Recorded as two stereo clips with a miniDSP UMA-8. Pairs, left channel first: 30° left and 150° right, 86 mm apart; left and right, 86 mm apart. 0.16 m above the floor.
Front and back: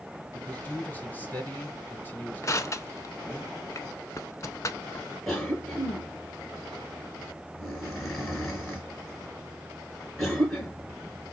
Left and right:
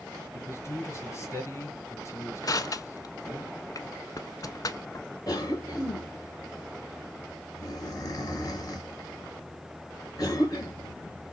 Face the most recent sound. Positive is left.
turn(degrees=115)